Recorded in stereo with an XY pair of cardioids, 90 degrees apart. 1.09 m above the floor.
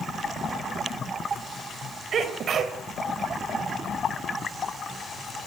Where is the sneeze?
65° right, 4.5 m.